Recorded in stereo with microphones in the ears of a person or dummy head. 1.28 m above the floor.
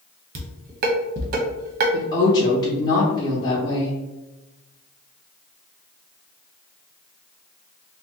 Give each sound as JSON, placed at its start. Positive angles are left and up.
{"t": 0.3, "sound": "dishes clattering", "side_deg": -50, "distance_m": 0.7}
{"t": 1.9, "sound": "a woman speaking", "side_deg": 25, "distance_m": 0.7}